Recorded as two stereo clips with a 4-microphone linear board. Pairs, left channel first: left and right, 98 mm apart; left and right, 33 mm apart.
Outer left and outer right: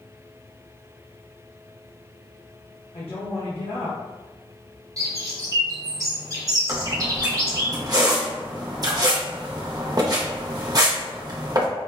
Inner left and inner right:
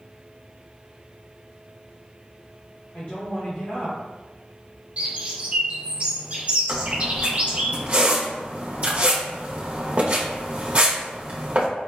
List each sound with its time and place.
2.9 s a woman speaking: 75° left (ahead or behind), 0.9 m
5.0 s a bird: 35° right (ahead or behind), 0.8 m
6.7 s a squeak: 40° right (ahead or behind), 0.7 m